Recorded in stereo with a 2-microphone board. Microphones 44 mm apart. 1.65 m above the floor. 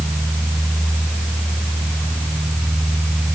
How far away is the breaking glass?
I don't hear breaking glass.